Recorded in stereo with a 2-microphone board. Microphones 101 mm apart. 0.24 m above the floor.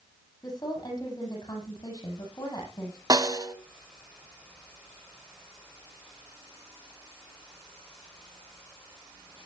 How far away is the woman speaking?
About 7.5 m.